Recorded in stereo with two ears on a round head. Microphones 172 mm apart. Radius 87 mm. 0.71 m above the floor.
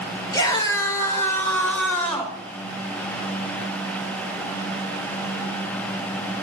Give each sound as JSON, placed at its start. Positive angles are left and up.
{"t": 0.3, "sound": "a scream", "side_deg": 20, "distance_m": 3.5}